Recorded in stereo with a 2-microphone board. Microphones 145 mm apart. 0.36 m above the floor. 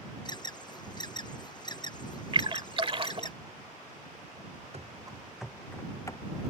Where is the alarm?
30° left (ahead or behind).